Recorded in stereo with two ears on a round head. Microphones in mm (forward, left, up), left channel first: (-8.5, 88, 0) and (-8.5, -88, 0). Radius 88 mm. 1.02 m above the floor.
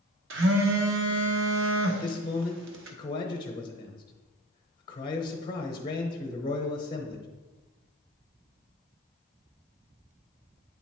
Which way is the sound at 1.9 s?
25° left (ahead or behind).